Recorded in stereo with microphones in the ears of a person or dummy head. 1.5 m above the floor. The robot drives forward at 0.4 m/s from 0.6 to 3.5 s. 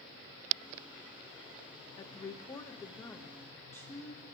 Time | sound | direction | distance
2.0 | a woman speaking | 20° left (ahead or behind) | 0.9 m